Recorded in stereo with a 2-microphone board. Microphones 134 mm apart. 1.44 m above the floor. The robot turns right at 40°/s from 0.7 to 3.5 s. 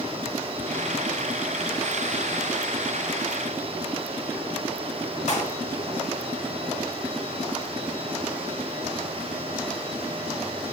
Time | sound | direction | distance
5.3 | a clap | 55° left (ahead or behind) | 6.5 m